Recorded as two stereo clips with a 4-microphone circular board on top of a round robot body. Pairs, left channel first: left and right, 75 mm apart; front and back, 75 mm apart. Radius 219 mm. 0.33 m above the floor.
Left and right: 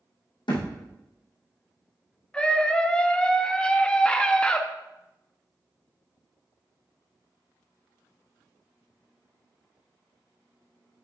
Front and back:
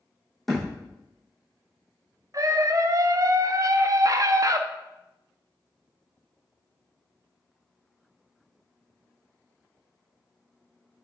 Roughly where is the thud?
Left.